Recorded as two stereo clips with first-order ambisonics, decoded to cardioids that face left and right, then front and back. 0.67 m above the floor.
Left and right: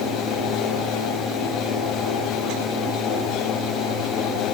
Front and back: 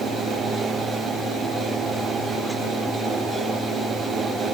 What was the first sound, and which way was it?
Only background noise.